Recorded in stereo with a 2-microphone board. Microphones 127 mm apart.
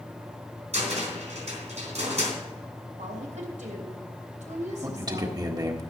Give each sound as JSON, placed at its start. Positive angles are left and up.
{"t": 0.7, "sound": "a cupboard door", "side_deg": -65, "distance_m": 3.5}
{"t": 3.0, "sound": "a woman speaking", "side_deg": -75, "distance_m": 3.0}
{"t": 4.8, "sound": "a man speaking", "side_deg": -30, "distance_m": 1.7}